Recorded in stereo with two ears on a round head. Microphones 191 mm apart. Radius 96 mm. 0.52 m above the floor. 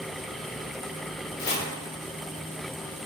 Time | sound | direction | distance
1.4 | chopping | 45° left (ahead or behind) | 0.7 m